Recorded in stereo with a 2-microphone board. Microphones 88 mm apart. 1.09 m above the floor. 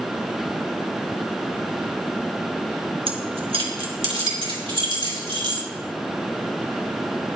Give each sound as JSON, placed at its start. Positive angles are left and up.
{"t": 3.1, "sound": "keys jangling", "side_deg": -80, "distance_m": 1.1}